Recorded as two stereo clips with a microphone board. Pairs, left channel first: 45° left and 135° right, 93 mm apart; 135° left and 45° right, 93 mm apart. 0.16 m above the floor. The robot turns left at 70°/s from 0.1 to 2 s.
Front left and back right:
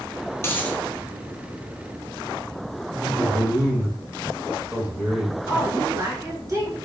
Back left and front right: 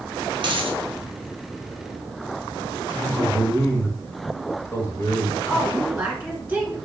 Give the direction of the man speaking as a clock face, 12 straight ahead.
6 o'clock.